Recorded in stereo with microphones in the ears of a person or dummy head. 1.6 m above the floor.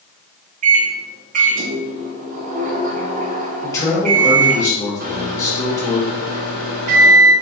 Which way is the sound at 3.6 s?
15° left (ahead or behind).